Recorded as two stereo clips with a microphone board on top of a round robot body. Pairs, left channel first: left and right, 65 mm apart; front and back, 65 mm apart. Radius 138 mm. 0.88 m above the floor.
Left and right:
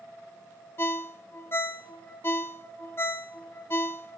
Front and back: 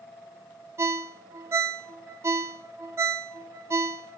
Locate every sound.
0.8 s a ringtone: 140° left, 0.6 m